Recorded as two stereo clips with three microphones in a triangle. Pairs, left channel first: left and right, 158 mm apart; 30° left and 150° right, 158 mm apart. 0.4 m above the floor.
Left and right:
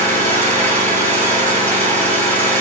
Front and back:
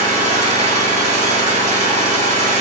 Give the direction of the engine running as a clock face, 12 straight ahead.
6 o'clock.